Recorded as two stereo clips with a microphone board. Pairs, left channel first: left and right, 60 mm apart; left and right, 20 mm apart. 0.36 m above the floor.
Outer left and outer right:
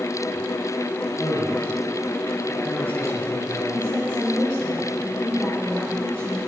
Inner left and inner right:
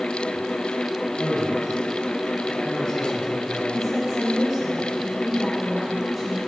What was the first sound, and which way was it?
A man speaking, 45° left (ahead or behind).